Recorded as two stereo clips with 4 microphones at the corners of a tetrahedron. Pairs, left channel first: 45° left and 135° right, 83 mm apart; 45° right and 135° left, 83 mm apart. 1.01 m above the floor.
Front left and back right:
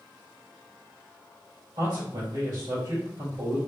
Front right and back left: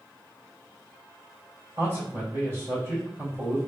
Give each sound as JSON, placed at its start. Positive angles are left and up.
{"t": 1.8, "sound": "a man speaking", "azimuth_deg": -165, "distance_m": 2.0}